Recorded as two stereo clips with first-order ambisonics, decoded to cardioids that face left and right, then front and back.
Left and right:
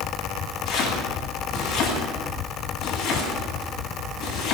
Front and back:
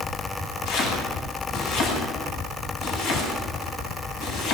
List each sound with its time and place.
0.7 s chopping: 25° left, 9.5 m